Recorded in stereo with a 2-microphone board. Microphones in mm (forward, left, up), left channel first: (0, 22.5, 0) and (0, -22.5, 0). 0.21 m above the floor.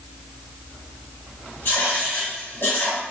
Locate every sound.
1.6 s writing: 60° left (ahead or behind), 1.4 m